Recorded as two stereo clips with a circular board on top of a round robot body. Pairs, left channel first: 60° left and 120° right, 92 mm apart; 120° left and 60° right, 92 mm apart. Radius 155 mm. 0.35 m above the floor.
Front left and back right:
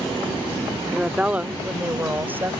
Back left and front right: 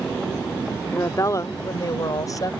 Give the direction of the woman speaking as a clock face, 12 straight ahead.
7 o'clock.